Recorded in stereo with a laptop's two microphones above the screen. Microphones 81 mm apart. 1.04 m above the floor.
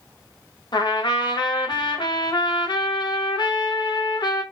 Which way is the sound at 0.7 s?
65° left (ahead or behind).